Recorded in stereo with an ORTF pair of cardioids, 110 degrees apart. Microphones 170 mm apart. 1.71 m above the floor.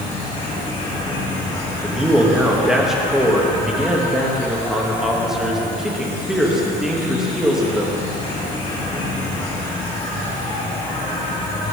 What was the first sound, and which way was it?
An insect, 45° left.